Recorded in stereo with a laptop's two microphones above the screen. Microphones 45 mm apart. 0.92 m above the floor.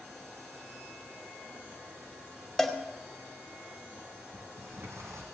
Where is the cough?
No cough in this recording.